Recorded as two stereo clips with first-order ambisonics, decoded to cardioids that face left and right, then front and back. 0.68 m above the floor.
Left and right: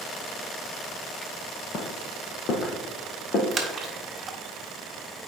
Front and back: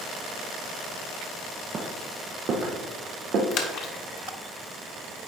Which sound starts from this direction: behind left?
Footsteps, at 1.7 s.